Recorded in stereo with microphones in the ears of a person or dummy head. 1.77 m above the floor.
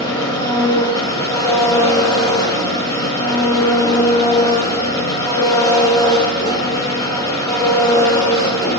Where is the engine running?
20° left (ahead or behind), 2.5 m.